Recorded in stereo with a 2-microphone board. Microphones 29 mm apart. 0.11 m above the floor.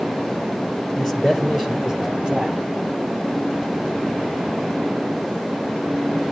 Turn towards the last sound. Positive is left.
turn(degrees=-30)  # may be behind; listen again after turning